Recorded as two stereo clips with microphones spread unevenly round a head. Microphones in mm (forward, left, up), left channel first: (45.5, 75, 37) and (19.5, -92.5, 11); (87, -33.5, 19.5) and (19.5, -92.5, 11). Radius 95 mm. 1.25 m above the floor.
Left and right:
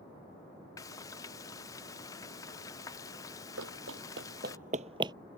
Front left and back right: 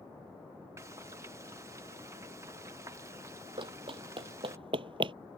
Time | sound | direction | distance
0.8 | frying | 155° left | ?
3.6 | running footsteps | 115° right | ?